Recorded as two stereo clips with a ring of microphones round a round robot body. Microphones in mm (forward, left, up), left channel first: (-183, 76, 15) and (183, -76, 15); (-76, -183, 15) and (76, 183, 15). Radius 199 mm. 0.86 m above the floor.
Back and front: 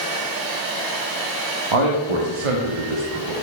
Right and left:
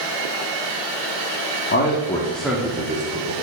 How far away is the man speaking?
About 1.3 m.